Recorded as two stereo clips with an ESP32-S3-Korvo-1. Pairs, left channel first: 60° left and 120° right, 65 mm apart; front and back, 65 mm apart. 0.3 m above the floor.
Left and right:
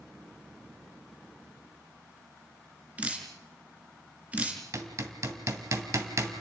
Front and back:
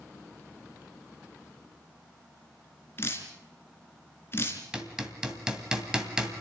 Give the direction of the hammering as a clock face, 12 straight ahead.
3 o'clock.